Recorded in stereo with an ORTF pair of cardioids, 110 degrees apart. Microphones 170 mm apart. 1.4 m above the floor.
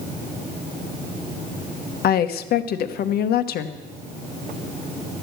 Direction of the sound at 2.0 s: 65° left.